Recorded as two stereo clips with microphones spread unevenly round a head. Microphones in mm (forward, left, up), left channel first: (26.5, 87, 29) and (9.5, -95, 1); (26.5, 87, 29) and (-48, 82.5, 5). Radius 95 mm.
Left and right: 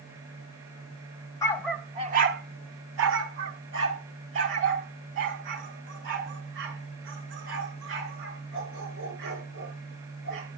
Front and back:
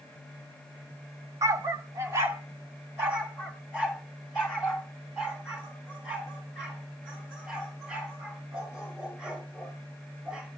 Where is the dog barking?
135° left, 0.9 m; by 10.5 s 70° right, 10 m.